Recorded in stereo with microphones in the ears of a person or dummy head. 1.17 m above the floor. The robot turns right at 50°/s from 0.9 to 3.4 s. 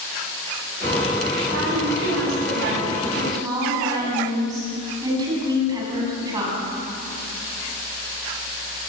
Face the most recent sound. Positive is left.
turn(degrees=-25)